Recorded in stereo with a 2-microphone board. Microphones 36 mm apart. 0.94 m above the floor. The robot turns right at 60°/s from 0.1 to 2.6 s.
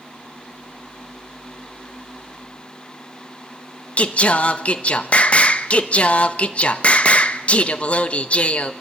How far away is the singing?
About 1.1 m.